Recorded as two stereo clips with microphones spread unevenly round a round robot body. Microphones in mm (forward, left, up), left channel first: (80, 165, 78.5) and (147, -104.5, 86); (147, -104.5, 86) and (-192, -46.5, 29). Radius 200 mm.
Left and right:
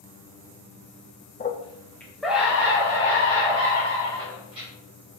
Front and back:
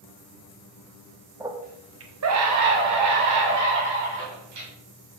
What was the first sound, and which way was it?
A scream, 115° left.